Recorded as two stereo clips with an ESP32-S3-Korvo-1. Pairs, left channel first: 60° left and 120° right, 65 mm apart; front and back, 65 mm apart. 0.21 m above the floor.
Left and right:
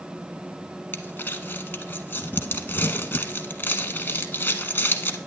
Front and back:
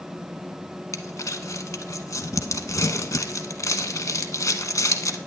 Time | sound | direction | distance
0.9 | crumpling | 10° left | 0.8 m